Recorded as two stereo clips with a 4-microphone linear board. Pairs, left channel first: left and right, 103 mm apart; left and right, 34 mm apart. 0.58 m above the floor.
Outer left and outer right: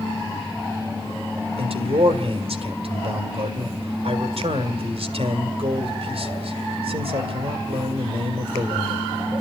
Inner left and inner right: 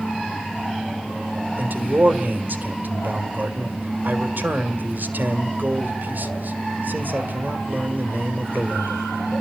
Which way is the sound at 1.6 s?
70° right (ahead or behind).